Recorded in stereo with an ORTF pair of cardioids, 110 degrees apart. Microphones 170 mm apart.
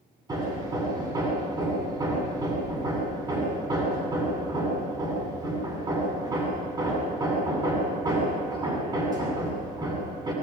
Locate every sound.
0.3 s hammering: 25° right, 8.5 m